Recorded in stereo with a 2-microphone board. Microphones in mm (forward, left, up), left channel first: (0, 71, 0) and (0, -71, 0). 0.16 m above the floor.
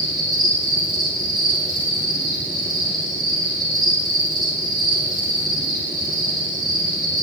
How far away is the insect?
About 3.5 m.